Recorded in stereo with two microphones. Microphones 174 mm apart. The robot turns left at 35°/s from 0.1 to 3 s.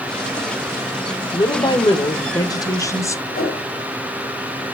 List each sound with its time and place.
1.3 s a woman speaking: 25° left (ahead or behind), 0.9 m; by 3.2 s 15° left (ahead or behind), 0.9 m
3.3 s a whoosh: 60° left (ahead or behind), 2.5 m